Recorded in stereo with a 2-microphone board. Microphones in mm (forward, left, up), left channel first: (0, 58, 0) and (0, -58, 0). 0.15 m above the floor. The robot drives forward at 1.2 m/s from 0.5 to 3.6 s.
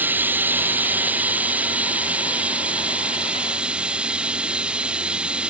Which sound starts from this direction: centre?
Running water, at 0.0 s.